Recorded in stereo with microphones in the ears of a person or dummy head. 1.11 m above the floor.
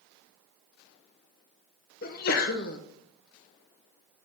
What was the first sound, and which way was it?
A sneeze, 45° left (ahead or behind).